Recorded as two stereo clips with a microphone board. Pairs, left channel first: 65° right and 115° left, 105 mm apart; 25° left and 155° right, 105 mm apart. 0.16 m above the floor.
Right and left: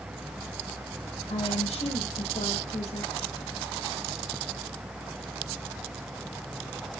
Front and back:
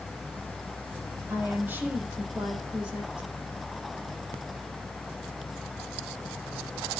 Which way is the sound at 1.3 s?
85° right.